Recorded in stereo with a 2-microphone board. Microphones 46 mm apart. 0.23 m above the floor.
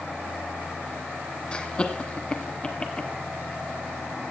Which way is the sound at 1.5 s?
25° left (ahead or behind).